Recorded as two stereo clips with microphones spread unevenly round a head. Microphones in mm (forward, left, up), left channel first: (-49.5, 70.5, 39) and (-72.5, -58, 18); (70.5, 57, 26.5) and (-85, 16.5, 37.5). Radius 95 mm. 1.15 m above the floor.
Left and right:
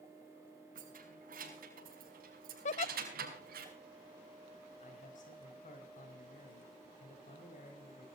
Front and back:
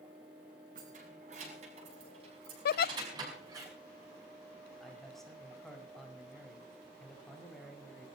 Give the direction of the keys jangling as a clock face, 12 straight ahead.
4 o'clock.